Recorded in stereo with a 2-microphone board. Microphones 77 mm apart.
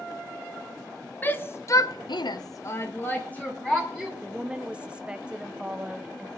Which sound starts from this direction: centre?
A woman speaking, at 4.2 s.